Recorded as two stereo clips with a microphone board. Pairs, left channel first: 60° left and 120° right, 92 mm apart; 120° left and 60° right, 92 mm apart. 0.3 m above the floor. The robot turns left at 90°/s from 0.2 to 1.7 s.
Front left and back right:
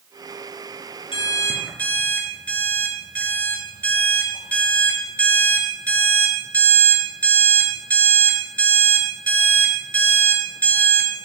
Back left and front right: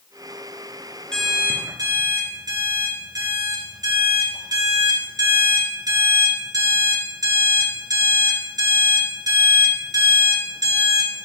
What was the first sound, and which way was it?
An alarm clock, 40° left.